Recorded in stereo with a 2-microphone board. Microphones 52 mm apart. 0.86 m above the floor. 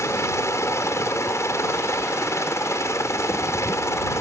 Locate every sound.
0.0 s a helicopter: 65° left (ahead or behind)